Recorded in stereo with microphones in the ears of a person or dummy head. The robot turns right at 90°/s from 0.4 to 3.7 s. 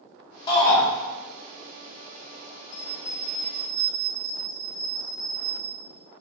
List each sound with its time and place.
0.5 s a shout: 30° left, 1.6 m; by 0.8 s 60° left, 1.6 m
2.7 s a bell: 110° left, 1.3 m; by 5.8 s 165° right, 1.3 m